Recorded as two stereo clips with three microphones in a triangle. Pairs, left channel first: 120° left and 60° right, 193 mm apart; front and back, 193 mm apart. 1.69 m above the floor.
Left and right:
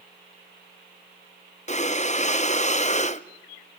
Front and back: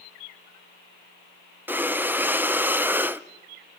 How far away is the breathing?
About 0.8 m.